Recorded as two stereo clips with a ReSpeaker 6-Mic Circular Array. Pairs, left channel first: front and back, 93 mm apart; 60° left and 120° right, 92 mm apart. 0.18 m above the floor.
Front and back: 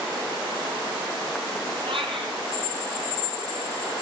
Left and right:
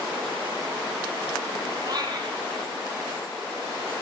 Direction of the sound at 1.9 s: 165° right.